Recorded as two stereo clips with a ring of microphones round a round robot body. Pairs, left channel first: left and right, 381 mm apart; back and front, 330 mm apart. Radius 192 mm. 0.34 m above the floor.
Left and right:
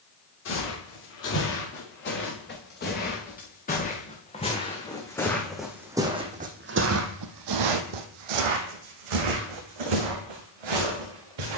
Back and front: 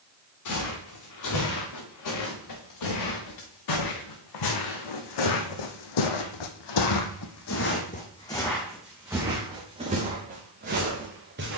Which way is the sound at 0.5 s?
150° left.